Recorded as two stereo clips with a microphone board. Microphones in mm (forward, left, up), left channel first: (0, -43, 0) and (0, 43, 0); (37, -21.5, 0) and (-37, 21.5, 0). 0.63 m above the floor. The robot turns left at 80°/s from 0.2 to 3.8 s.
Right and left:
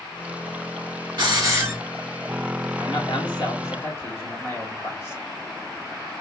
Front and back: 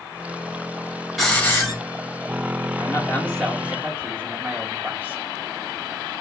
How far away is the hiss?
About 1.3 m.